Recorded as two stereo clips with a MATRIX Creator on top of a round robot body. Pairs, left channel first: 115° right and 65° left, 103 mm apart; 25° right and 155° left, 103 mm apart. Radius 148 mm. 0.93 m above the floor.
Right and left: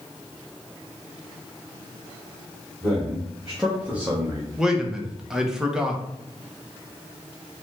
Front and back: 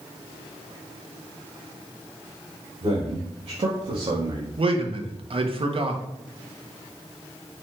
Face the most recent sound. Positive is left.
turn(degrees=150)